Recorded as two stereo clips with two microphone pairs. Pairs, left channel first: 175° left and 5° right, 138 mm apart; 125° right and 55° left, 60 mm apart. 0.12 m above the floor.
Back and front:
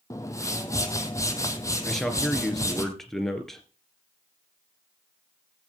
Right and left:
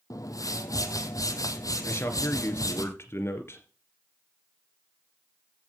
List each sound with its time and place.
0.1 s a whoosh: 115° right, 1.6 m
1.9 s a man speaking: 95° right, 2.5 m